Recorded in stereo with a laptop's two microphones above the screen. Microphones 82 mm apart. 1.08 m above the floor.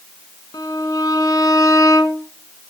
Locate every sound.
0.5 s a violin: 45° left (ahead or behind), 1.0 m